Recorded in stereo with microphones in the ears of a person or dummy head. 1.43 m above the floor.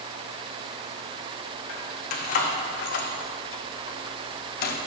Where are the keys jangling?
40° left (ahead or behind), 1.7 m; by 4.8 s 55° left (ahead or behind), 1.2 m.